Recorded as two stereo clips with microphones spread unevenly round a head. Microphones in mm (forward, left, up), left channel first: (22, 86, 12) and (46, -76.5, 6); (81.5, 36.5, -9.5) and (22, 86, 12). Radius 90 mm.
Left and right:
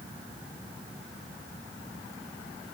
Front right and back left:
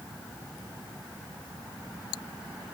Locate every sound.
Only background noise.